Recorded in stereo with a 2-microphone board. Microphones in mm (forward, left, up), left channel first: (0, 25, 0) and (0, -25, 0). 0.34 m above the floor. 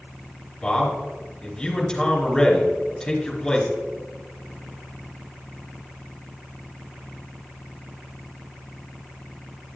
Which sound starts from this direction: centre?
A man speaking, at 0.6 s.